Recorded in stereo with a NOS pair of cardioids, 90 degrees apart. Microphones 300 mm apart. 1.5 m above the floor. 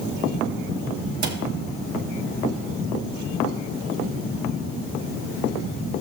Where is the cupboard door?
65° right, 1.9 m.